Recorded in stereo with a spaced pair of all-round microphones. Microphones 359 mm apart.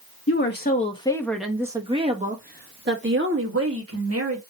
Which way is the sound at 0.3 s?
35° left (ahead or behind).